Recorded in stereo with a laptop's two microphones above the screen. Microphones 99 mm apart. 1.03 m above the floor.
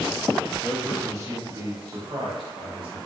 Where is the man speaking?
20° right (ahead or behind), 1.4 m; by 3.0 s 65° right (ahead or behind), 1.8 m.